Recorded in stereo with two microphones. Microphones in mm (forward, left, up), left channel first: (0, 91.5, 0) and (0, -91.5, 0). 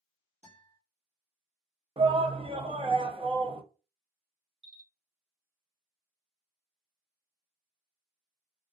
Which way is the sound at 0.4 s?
40° right (ahead or behind).